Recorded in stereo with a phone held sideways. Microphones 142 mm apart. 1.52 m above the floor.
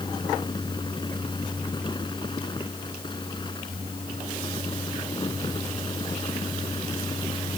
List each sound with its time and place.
0.0 s a fan: 30° left (ahead or behind)